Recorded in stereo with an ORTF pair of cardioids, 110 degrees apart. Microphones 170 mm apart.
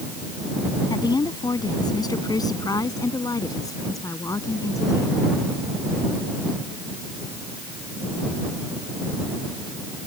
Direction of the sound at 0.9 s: 20° left.